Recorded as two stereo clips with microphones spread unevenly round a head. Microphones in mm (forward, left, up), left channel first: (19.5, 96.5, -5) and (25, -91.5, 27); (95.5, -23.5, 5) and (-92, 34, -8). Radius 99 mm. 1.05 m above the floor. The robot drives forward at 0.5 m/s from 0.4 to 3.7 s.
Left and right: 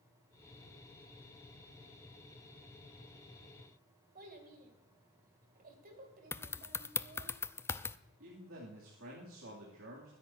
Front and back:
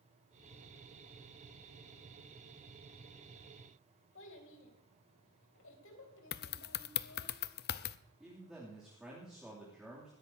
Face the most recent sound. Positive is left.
turn(degrees=-110)